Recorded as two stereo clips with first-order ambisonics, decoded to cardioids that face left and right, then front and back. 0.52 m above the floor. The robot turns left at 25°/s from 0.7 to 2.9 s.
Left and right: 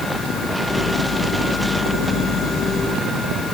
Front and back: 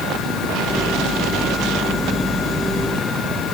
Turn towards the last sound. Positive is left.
No sound to turn to.